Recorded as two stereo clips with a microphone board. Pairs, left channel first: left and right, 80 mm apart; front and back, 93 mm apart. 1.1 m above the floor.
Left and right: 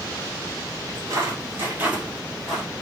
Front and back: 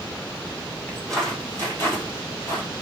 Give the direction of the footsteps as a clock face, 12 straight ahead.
3 o'clock.